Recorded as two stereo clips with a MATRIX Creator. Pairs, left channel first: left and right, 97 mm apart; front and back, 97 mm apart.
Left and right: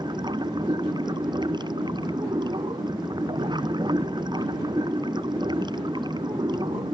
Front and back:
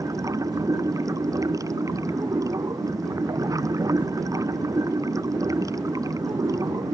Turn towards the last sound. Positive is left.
turn(degrees=-130)